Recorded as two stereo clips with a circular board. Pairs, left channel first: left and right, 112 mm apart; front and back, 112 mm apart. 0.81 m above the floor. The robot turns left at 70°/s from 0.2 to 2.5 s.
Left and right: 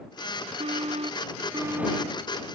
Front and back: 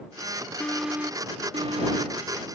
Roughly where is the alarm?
Right.